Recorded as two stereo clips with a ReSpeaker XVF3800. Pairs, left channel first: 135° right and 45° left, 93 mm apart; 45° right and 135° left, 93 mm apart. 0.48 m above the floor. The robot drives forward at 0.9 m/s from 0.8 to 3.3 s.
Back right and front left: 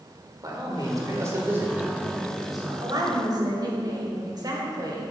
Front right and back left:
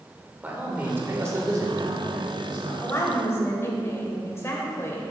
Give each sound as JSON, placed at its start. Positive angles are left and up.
{"t": 0.4, "sound": "a man speaking", "azimuth_deg": 70, "distance_m": 1.8}
{"t": 2.8, "sound": "a woman speaking", "azimuth_deg": 10, "distance_m": 2.5}